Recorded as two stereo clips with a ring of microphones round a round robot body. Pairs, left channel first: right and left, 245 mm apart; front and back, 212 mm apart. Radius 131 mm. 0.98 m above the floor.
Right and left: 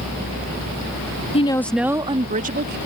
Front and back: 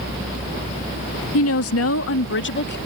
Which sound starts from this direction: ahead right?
A woman speaking, at 1.3 s.